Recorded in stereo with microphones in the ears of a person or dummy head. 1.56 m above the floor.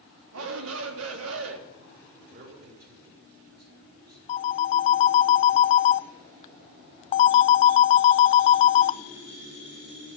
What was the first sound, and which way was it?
A shout, 85° right.